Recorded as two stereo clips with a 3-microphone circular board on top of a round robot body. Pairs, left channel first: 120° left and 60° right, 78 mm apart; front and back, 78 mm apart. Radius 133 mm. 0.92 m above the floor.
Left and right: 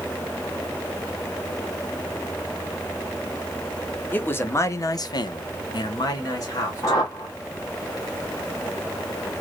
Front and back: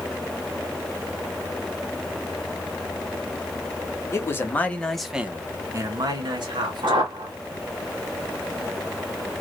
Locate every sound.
4.1 s a man speaking: 55° left, 1.0 m; by 7.2 s 175° left, 1.4 m
6.8 s a whoosh: 165° left, 1.3 m